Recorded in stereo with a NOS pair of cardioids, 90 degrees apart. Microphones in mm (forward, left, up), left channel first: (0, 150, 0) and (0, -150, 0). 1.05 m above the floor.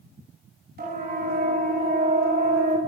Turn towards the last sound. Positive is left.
turn(degrees=-25)